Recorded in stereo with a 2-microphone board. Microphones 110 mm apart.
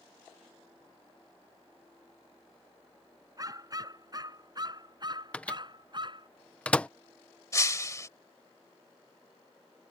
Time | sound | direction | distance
3.4 | a dog barking | 35° right (ahead or behind) | ?
5.3 | a microwave | 10° left (ahead or behind) | ?
7.5 | breaking glass | 30° left (ahead or behind) | ?